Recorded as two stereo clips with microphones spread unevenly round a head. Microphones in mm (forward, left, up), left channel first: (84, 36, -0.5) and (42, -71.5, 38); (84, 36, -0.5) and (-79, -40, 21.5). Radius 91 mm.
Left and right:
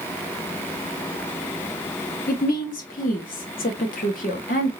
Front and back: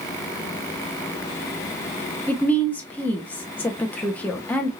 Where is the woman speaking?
110° left, 0.8 m.